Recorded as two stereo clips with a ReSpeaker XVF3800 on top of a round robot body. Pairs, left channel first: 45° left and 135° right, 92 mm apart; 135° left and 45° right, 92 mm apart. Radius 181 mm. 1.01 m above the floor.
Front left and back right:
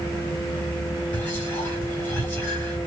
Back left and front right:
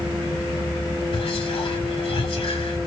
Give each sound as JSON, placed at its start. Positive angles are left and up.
{"t": 1.1, "sound": "whispering", "azimuth_deg": 120, "distance_m": 2.5}